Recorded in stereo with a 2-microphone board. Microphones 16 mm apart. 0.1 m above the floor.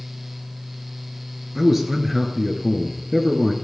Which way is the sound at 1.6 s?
15° right (ahead or behind).